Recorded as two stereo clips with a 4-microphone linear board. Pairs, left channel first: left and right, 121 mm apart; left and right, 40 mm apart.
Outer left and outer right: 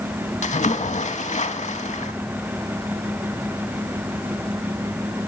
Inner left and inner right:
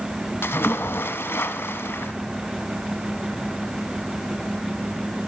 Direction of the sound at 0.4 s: 85° left.